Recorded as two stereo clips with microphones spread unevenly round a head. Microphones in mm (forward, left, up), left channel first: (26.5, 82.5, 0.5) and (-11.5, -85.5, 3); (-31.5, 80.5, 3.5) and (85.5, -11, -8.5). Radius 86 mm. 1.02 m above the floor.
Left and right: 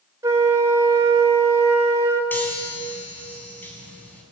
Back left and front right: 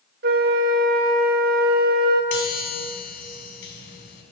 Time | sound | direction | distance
0.2 | a flute | 30° right | 4.5 m
2.3 | a chime | 160° left | 5.5 m